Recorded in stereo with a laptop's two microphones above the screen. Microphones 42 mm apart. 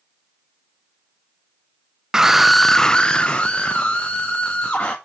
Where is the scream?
15° right (ahead or behind), 0.7 m; by 5.0 s 30° left (ahead or behind), 2.0 m.